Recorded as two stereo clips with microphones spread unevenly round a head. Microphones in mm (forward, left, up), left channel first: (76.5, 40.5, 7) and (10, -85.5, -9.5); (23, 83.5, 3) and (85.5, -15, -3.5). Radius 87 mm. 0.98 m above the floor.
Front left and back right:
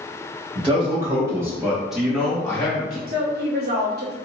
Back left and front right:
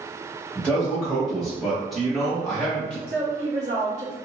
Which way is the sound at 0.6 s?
155° right.